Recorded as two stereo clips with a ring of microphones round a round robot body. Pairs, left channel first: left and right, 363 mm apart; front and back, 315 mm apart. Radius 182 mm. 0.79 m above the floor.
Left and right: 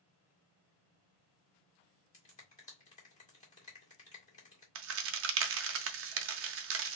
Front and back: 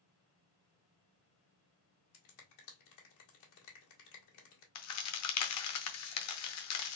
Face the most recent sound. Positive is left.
turn(degrees=-40)